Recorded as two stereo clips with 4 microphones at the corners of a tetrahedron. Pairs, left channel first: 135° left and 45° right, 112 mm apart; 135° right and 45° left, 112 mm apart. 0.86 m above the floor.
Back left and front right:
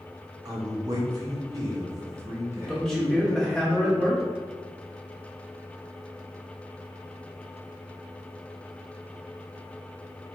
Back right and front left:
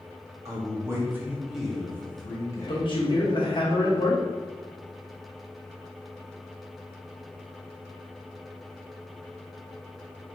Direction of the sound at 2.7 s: 140° right.